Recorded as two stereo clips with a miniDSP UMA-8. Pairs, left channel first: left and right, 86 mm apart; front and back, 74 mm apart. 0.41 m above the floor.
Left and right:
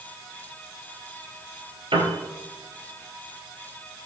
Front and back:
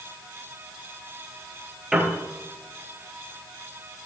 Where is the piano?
95° right, 2.5 m.